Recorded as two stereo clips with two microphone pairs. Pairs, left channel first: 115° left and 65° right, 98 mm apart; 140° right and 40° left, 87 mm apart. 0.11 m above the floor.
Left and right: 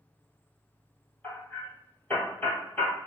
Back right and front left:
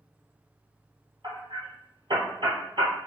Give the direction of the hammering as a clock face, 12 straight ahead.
10 o'clock.